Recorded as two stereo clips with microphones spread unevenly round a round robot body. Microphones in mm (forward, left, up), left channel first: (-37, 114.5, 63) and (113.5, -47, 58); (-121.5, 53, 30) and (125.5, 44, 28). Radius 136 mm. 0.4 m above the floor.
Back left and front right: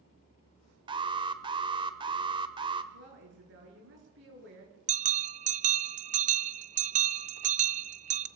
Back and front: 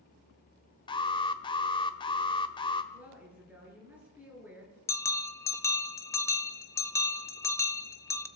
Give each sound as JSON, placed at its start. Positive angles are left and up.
{"t": 0.9, "sound": "an alarm", "azimuth_deg": -110, "distance_m": 1.2}
{"t": 2.9, "sound": "a woman speaking", "azimuth_deg": -85, "distance_m": 8.0}
{"t": 4.9, "sound": "a bell", "azimuth_deg": -105, "distance_m": 0.6}